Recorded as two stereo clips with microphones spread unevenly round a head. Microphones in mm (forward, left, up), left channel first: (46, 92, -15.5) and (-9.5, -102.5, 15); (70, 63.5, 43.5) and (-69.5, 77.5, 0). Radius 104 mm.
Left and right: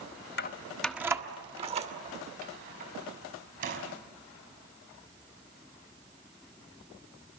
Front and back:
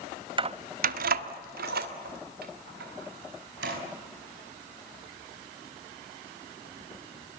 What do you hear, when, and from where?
0.4 s keys jangling: 120° left, 0.8 m; by 3.8 s 155° right, 5.5 m